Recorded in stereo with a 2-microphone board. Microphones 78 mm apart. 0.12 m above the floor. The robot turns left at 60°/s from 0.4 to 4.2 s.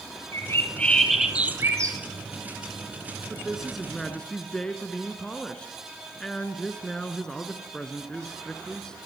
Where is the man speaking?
10° right (ahead or behind), 1.5 m; by 9.1 s 10° left (ahead or behind), 1.5 m.